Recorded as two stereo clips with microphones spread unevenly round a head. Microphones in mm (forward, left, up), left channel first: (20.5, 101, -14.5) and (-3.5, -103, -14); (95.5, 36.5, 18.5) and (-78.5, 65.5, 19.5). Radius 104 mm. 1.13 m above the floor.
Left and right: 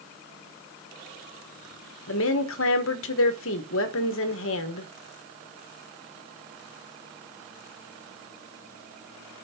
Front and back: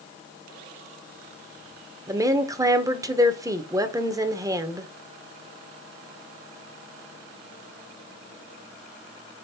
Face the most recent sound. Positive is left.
turn(degrees=100)